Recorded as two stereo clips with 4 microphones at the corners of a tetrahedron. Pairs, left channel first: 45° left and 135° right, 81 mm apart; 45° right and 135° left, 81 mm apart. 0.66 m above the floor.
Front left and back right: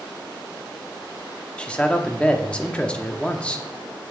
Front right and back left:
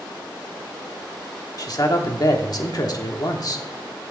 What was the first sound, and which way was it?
A man speaking, 30° right.